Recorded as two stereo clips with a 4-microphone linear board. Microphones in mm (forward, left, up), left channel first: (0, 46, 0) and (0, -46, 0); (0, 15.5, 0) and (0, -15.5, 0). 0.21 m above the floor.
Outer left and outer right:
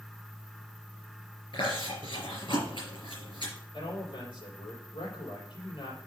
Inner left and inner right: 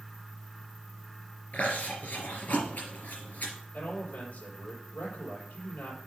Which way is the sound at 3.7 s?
75° left (ahead or behind).